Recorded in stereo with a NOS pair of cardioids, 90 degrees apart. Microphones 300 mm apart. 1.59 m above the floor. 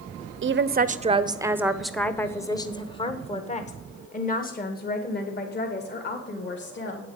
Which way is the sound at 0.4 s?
40° right.